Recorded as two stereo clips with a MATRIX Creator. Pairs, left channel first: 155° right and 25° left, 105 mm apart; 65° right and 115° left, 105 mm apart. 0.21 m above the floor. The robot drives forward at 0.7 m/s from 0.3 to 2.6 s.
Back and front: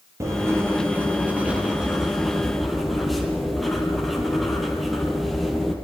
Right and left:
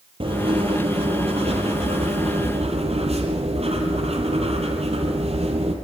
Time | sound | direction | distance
0.2 | writing | 85° left | 3.5 m